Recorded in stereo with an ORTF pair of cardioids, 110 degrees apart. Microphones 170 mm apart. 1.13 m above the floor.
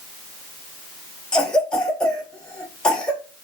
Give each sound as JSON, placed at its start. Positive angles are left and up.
{"t": 1.3, "sound": "a cough", "azimuth_deg": 5, "distance_m": 0.7}